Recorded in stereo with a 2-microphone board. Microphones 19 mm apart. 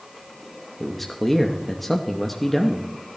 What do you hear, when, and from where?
0.8 s a man speaking: 10° left (ahead or behind), 0.7 m